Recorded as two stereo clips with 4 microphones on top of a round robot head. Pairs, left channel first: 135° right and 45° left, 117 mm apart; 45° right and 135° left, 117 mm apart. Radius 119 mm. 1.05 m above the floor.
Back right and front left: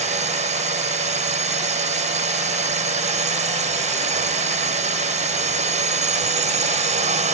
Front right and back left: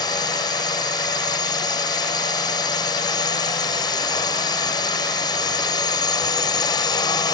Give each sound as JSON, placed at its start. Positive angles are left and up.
{"t": 0.0, "sound": "a drone", "azimuth_deg": 15}